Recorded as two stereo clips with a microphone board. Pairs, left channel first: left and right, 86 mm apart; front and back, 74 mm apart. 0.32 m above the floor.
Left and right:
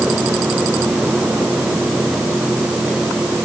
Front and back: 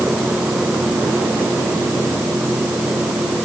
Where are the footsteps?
No footsteps in this recording.